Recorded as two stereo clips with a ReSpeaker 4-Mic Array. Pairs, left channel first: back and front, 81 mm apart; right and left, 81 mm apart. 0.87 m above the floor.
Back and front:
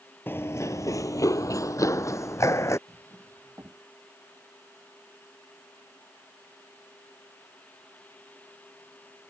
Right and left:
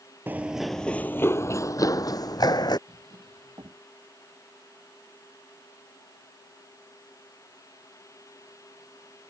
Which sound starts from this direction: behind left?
Running footsteps, at 0.3 s.